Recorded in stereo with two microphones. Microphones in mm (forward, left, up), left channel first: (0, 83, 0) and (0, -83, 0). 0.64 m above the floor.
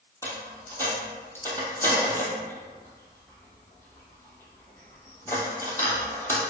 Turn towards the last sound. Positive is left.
turn(degrees=15)  # may be behind; listen again after turning